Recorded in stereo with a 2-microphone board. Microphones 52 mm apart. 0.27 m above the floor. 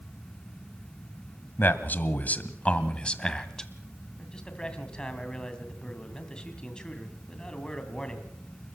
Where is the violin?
No violin in this recording.